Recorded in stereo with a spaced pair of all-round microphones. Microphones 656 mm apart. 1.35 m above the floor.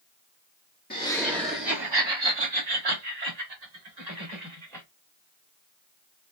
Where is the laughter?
15° left (ahead or behind), 0.7 m; by 4.8 s 85° right, 2 m.